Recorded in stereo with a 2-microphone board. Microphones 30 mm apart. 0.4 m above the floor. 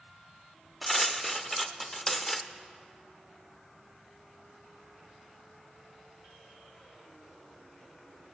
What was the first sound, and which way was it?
Cutlery clinking, 5° left (ahead or behind).